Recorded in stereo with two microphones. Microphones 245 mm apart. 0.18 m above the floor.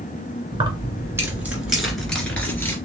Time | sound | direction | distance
0.5 | keys jangling | 20° right (ahead or behind) | 1.5 m